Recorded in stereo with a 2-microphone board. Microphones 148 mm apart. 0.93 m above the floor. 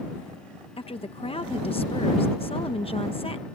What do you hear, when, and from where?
0.8 s a woman speaking: 40° left (ahead or behind)